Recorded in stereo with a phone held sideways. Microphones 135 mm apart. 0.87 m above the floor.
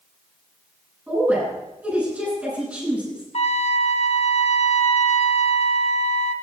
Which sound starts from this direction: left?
A trumpet, at 3.3 s.